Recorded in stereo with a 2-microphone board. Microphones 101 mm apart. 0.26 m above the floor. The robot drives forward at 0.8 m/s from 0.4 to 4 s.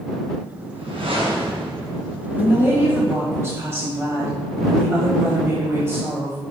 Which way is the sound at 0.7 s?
65° right (ahead or behind).